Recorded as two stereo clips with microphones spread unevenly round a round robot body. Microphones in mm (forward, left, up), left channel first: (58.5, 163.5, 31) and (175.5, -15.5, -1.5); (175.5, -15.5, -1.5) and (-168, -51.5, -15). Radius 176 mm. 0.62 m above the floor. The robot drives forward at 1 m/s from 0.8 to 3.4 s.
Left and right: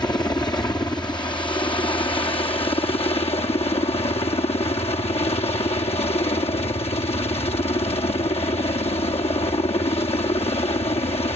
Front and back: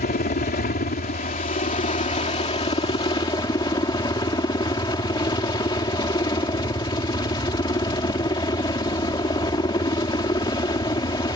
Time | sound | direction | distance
0.0 | a helicopter | 55° left | ?